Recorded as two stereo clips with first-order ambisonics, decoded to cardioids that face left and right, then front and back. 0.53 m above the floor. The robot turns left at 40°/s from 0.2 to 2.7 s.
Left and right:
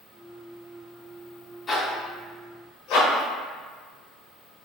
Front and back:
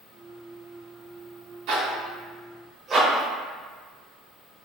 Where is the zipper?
155° left, 0.9 m; by 4.7 s 115° left, 0.9 m.